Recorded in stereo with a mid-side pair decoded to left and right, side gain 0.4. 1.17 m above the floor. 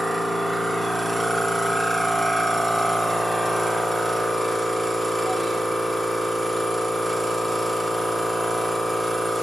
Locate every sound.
0.0 s a machine running: 5° right, 1.2 m